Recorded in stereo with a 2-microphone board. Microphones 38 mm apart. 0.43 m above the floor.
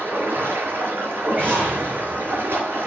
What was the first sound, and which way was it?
Running water, 80° right.